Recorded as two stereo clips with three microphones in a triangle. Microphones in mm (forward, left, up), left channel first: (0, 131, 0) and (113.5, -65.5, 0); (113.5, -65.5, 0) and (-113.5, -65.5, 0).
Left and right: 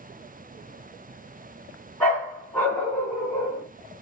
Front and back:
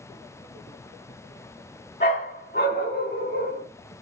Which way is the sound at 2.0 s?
35° left.